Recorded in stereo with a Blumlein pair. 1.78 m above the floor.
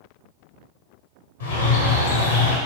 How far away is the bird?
About 0.8 m.